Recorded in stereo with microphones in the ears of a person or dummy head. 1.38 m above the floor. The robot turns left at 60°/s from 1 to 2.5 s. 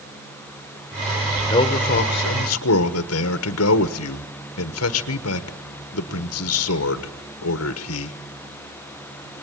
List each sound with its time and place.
1.5 s a man speaking: 155° left, 1.2 m; by 8.2 s 95° left, 1.2 m